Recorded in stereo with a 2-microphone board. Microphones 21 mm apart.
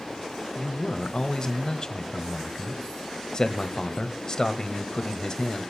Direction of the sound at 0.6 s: 35° left (ahead or behind).